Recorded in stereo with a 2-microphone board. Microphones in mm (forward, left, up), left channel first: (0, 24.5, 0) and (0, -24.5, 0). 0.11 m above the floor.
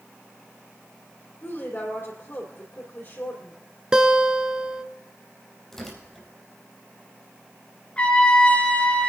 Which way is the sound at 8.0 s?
25° left (ahead or behind).